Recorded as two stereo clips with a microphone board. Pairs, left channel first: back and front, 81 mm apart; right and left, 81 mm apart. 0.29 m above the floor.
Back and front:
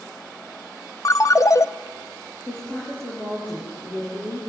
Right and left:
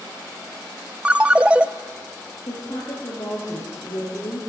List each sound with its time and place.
1.1 s a ringtone: 160° left, 0.7 m
2.5 s a woman speaking: 115° right, 7.5 m